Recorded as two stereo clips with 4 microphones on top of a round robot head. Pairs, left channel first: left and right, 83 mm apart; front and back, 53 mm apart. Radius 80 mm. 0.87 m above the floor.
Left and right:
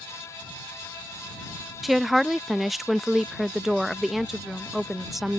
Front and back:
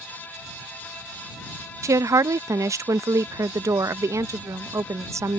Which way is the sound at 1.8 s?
Straight behind.